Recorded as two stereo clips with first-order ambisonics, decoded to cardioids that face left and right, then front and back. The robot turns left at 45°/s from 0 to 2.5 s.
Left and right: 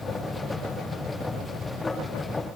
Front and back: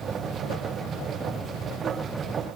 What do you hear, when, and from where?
Only background noise.